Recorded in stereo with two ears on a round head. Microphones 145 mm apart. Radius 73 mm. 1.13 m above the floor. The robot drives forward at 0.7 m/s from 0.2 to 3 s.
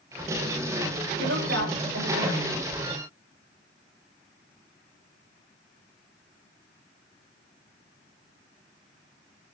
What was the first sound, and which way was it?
A woman speaking, 80° right.